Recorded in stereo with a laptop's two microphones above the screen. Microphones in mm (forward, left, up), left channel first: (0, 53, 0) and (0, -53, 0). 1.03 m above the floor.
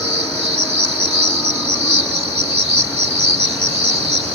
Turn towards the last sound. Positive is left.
turn(degrees=-75)  # may be behind; listen again after turning